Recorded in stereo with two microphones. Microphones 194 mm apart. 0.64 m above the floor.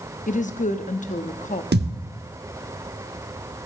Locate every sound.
0.3 s a woman speaking: 40° left (ahead or behind), 0.7 m
1.7 s a thud: 60° right (ahead or behind), 0.8 m